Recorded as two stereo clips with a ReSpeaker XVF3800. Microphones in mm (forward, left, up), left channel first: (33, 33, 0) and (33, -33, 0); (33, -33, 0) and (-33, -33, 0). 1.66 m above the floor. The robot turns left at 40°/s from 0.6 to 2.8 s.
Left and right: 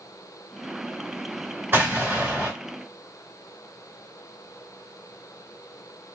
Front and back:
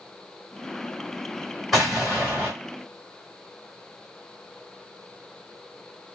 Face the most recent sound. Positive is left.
turn(degrees=-140)